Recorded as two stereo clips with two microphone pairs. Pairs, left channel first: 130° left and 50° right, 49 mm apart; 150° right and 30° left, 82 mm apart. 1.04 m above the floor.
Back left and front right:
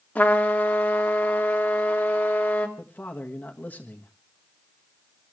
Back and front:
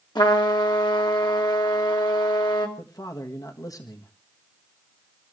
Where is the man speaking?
Straight behind, 1.5 m.